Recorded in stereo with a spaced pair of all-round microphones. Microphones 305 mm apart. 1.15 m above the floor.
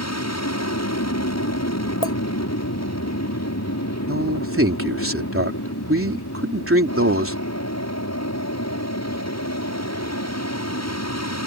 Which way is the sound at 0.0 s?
60° left (ahead or behind).